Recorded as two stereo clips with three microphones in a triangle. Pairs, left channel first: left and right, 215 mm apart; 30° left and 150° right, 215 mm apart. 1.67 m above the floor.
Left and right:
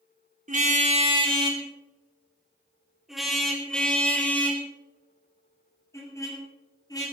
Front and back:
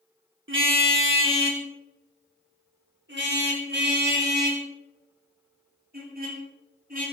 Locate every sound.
0.5 s a car horn: 140° right, 2.5 m; by 7.0 s 165° left, 7 m